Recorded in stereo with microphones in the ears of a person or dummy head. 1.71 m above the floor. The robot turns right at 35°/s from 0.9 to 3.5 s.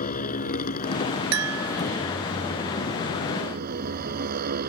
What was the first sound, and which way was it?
A motorcycle, 140° left.